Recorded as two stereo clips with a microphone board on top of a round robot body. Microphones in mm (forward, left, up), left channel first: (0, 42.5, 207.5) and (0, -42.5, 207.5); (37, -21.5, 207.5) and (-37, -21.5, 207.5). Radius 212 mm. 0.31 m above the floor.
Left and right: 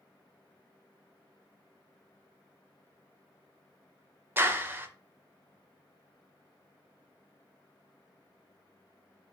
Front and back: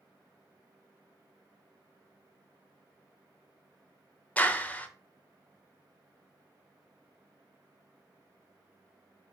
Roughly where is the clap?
Ahead right.